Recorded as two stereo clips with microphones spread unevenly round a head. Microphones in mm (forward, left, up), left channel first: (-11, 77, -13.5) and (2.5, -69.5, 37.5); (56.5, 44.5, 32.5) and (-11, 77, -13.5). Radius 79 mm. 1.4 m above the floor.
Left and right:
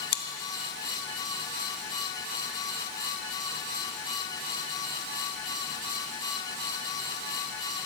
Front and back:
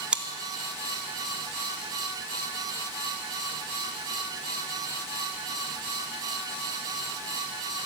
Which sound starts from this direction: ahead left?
Chewing, at 0.1 s.